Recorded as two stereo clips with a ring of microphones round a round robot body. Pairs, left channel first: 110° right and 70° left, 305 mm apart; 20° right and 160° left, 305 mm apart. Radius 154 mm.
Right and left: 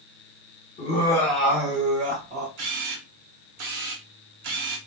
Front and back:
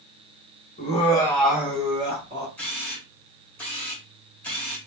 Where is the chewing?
I don't hear chewing.